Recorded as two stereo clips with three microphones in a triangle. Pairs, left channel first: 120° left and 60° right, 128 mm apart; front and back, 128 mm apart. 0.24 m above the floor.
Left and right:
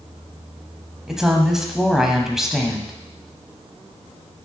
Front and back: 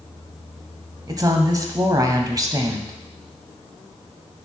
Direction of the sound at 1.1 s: 145° right.